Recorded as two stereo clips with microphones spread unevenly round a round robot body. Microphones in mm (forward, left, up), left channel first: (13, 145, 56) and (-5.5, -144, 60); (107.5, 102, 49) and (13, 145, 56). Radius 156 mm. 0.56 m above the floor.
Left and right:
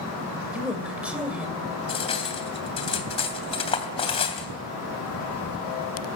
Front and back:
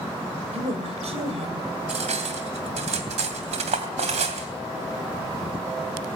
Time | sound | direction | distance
0.5 | a woman speaking | straight behind | 3 m
1.9 | cutlery clinking | 160° left | 2.5 m